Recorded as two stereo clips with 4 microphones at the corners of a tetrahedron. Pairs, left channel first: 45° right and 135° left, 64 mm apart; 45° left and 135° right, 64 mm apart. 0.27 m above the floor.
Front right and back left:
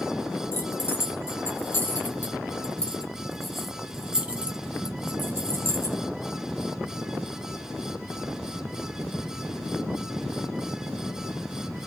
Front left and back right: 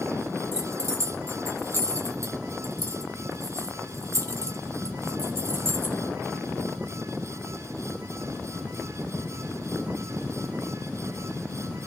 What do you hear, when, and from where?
0.5 s keys jangling: 90° right, 2.5 m; by 6.0 s 170° left, 1.6 m